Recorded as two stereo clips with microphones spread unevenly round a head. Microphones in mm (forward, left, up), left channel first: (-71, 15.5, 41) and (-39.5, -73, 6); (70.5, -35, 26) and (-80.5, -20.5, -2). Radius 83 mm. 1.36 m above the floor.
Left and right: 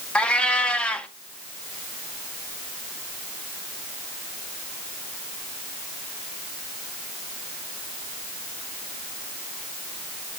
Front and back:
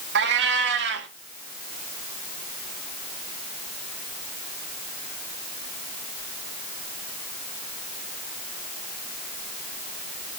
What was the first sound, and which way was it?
A cat meowing, straight behind.